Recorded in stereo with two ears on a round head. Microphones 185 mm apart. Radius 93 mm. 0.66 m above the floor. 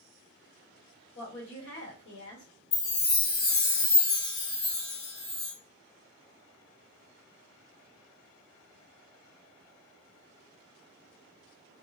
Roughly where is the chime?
Left.